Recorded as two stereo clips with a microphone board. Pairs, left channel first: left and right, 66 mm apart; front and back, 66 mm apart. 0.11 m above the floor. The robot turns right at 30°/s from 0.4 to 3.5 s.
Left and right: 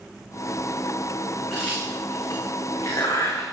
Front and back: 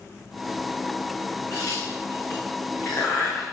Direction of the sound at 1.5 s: 10° left.